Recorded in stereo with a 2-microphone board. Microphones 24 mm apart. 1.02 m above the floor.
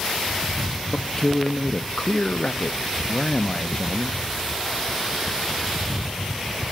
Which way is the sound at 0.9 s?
30° left (ahead or behind).